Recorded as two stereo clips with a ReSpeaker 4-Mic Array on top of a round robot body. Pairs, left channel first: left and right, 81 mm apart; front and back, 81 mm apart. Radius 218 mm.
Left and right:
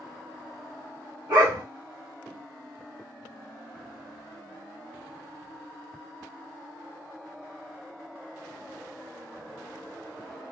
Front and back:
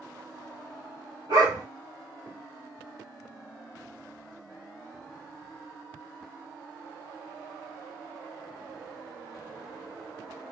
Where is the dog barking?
145° right, 1.0 m.